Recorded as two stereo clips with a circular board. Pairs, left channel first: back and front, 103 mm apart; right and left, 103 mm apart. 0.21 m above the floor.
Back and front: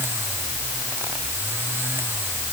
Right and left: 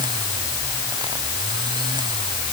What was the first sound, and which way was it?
Only background noise.